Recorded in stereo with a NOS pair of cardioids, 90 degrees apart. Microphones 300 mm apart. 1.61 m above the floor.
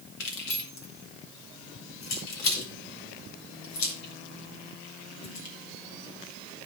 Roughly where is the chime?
No chime in this recording.